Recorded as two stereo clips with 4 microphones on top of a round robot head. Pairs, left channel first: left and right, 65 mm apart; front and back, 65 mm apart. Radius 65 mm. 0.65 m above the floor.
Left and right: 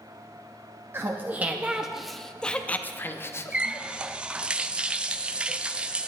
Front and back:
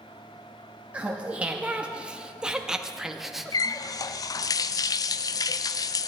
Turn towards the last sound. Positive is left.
turn(degrees=-15)